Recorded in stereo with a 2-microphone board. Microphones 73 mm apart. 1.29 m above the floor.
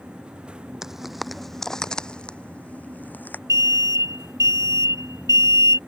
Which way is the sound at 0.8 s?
5° right (ahead or behind).